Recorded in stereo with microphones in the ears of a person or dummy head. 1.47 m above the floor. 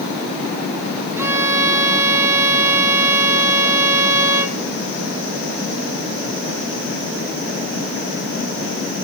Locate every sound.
1.2 s a violin: 15° right (ahead or behind), 1.2 m